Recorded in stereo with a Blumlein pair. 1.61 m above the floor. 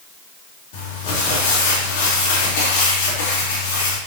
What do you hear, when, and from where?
0.7 s crumpling: 50° left, 4 m